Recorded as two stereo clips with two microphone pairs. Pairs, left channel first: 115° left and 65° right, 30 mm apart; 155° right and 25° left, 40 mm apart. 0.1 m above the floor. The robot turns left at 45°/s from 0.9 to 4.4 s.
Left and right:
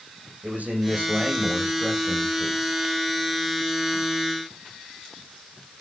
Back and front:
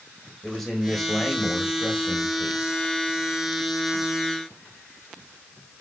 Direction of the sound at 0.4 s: 70° right.